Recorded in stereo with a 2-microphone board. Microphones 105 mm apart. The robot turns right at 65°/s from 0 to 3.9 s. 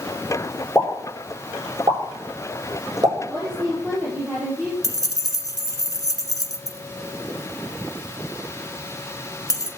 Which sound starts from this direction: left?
Keys jangling, at 4.8 s.